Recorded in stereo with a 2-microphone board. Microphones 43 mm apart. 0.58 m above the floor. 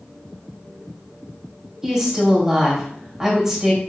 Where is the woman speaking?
15° right (ahead or behind), 2.5 m.